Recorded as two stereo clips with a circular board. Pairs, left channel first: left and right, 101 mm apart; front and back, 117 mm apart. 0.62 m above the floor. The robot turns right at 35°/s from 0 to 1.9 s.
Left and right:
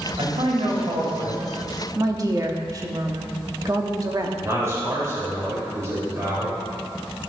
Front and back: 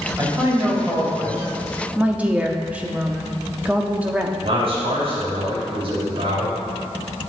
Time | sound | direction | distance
0.2 | a man speaking | 120° right | 2.5 m
1.9 | a woman speaking | 110° right | 0.9 m
4.4 | a man speaking | 150° right | 3 m